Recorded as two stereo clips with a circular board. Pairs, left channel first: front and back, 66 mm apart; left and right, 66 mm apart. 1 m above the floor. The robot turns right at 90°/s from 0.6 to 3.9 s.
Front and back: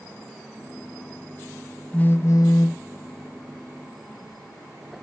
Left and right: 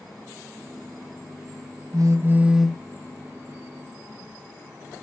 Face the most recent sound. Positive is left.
turn(degrees=110)